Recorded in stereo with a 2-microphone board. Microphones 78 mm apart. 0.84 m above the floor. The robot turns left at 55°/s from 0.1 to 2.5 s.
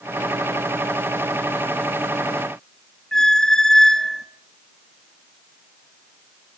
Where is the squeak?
10° left (ahead or behind), 0.5 m.